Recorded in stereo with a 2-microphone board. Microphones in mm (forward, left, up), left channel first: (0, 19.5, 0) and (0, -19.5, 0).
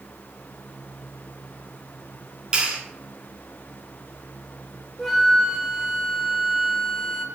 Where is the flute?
Centre (ahead or behind), 0.9 m.